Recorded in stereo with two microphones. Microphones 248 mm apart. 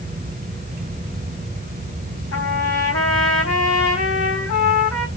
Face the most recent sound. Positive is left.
turn(degrees=80)